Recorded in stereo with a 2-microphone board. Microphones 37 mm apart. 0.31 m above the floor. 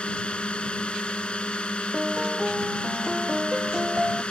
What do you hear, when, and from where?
0.0 s a drone: 25° left (ahead or behind)
1.9 s a piano: 15° right (ahead or behind)